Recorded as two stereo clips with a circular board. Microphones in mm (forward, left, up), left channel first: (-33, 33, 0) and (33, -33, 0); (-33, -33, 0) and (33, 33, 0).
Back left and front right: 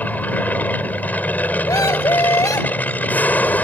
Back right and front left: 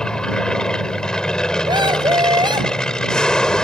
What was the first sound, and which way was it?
An aircraft, 160° left.